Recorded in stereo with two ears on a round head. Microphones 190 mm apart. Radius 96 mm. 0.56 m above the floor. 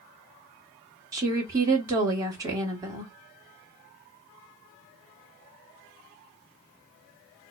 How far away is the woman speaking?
About 1.5 m.